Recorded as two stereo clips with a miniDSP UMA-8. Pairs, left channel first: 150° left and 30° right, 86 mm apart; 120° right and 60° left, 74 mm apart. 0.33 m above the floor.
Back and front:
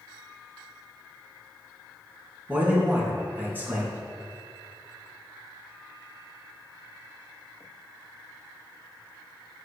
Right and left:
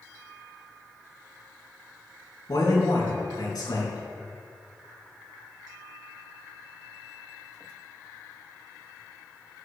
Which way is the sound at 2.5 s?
95° right.